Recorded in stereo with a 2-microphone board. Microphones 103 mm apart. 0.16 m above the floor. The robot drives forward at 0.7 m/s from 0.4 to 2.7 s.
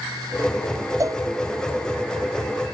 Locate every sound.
1.0 s a cowbell: 30° right (ahead or behind)